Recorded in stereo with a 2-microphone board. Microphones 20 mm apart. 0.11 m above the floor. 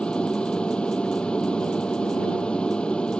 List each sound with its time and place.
0.0 s an aircraft: 65° left (ahead or behind)